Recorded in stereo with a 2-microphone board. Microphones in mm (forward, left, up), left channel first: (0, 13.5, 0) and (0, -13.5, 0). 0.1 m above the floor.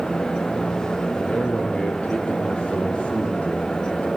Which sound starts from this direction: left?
A man speaking, at 1.1 s.